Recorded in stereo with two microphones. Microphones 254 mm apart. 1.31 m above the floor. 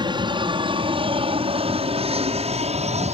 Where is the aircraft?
15° right (ahead or behind); by 3.1 s 25° right (ahead or behind).